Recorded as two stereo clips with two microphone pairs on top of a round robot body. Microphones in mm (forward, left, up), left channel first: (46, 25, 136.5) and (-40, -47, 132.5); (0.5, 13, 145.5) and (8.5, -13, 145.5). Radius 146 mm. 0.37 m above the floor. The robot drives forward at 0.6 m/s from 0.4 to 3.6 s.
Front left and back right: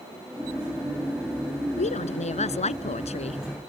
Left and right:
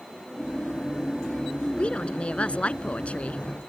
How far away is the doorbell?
No doorbell in this recording.